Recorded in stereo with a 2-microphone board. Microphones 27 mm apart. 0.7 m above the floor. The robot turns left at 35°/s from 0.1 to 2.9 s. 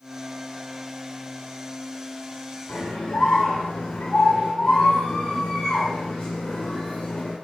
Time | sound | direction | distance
2.7 | a scream | 45° left (ahead or behind) | 2 m